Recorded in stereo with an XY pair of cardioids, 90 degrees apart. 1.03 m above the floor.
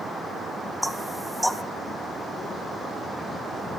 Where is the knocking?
Straight ahead, 0.9 m.